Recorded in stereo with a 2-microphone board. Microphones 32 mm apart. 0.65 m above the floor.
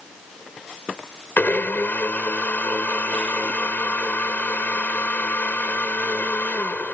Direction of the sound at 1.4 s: 70° left (ahead or behind).